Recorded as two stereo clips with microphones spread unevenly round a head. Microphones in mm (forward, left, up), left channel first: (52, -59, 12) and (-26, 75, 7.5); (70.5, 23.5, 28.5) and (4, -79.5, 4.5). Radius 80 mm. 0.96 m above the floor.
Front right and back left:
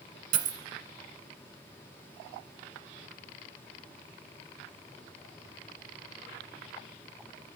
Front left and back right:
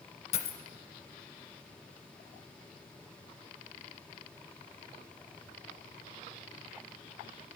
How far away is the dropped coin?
About 1.2 m.